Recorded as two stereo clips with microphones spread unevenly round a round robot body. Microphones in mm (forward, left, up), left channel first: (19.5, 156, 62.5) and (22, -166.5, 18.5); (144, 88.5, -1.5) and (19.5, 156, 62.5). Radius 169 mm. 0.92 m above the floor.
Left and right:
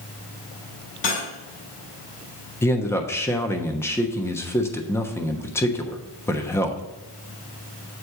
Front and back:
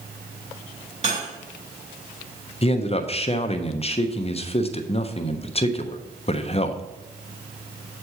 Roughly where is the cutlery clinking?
Left.